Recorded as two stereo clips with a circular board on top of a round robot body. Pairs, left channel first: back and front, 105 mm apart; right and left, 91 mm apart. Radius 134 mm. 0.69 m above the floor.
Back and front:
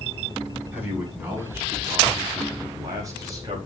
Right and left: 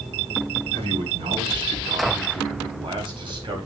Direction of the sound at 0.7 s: 70° left.